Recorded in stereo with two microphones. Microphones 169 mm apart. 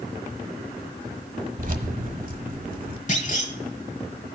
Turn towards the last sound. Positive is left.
turn(degrees=45)  # may be behind; listen again after turning